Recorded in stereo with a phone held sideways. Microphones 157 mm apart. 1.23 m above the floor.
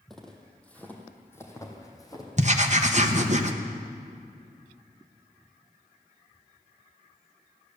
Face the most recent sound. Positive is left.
turn(degrees=-50)  # may be behind; listen again after turning